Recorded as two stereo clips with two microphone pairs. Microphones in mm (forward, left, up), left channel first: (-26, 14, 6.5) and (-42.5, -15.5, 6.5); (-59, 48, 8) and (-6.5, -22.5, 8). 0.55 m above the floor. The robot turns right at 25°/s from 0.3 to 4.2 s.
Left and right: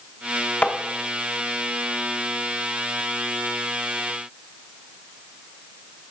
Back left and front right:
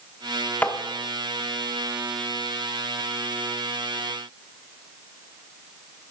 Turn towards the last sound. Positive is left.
turn(degrees=160)